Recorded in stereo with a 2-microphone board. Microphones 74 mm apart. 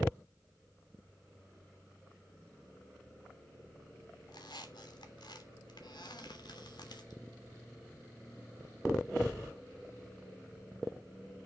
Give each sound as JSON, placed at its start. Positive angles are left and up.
{"t": 4.3, "sound": "a squeak", "side_deg": 80, "distance_m": 3.0}